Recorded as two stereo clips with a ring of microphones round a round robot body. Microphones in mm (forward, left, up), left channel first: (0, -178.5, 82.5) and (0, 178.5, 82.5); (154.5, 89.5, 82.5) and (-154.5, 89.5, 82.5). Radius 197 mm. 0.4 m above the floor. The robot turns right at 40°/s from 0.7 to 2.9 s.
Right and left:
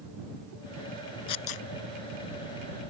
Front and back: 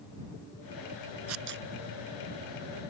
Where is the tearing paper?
130° right; by 1.7 s 115° right.